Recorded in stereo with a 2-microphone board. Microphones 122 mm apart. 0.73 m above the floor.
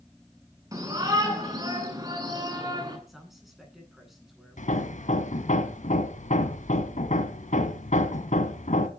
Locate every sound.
0.7 s a shout: 25° right (ahead or behind), 9 m; by 3.0 s 30° right (ahead or behind), 10 m
3.1 s a man speaking: centre (ahead or behind), 9.5 m
4.6 s hammering: 75° left (ahead or behind), 1.8 m